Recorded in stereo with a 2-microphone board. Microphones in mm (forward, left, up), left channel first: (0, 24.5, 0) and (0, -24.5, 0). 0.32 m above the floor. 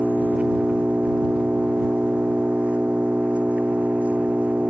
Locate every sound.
0.0 s an engine running: 25° right (ahead or behind)